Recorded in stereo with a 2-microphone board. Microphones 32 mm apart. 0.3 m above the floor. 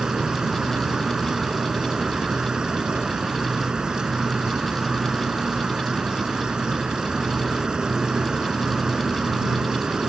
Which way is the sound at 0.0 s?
30° right (ahead or behind).